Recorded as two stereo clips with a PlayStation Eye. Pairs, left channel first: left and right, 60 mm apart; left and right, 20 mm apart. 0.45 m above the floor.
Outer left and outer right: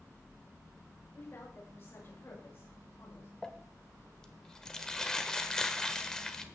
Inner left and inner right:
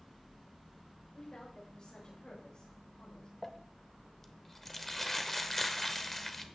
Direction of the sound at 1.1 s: 50° left (ahead or behind).